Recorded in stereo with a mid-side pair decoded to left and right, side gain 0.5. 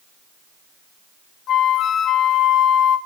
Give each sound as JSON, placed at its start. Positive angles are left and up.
{"t": 1.5, "sound": "a flute", "azimuth_deg": 60, "distance_m": 0.7}